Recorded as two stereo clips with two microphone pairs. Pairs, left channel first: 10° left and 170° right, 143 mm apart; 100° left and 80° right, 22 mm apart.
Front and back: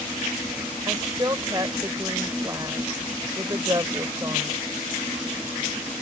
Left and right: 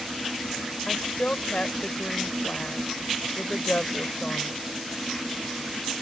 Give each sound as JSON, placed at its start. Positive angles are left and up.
{"t": 0.9, "sound": "a woman speaking", "azimuth_deg": 125}